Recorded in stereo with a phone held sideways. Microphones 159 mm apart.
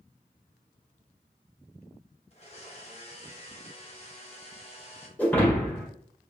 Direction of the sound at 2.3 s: 40° left (ahead or behind).